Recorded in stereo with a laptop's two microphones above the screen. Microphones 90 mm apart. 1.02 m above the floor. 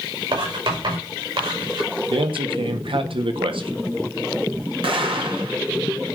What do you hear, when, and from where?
0.3 s writing: 75° right (ahead or behind), 5.5 m
2.1 s a man speaking: 70° right (ahead or behind), 1.4 m
4.8 s an explosion: 75° right (ahead or behind), 1.6 m